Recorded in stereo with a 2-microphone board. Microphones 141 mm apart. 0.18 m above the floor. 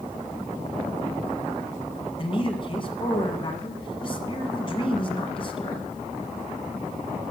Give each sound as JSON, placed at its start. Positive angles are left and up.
{"t": 2.2, "sound": "a man speaking", "side_deg": 40, "distance_m": 1.5}